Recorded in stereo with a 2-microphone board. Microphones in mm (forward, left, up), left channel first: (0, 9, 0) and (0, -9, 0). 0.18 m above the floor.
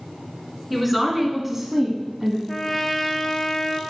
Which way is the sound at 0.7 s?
5° right (ahead or behind).